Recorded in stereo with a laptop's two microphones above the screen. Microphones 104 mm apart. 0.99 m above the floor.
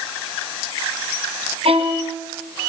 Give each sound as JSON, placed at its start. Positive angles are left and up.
{"t": 1.6, "sound": "a violin", "side_deg": -70, "distance_m": 3.0}